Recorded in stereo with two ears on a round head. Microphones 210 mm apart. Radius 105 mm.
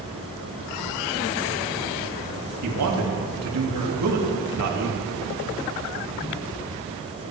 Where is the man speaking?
80° right, 2.5 m.